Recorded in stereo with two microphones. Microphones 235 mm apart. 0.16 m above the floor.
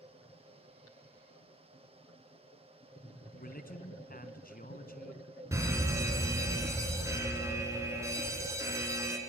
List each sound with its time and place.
3.4 s a man speaking: 40° left (ahead or behind), 1.5 m
5.5 s a fire alarm: 10° right (ahead or behind), 3 m